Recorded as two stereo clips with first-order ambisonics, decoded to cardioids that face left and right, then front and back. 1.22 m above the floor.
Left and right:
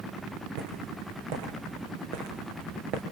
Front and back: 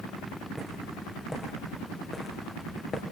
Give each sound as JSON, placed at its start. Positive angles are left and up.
{"t": 0.6, "sound": "footsteps", "azimuth_deg": -90, "distance_m": 3.5}